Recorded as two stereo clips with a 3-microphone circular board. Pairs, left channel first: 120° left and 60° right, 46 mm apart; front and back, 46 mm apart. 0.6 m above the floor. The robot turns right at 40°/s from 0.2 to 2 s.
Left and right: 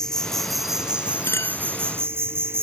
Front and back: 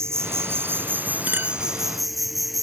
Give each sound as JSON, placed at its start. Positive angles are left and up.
{"t": 0.0, "sound": "an insect", "azimuth_deg": -160}
{"t": 1.3, "sound": "a clink", "azimuth_deg": 130}